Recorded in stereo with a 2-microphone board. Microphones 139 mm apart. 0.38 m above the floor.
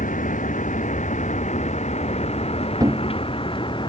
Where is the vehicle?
70° left (ahead or behind); by 3.9 s 35° left (ahead or behind).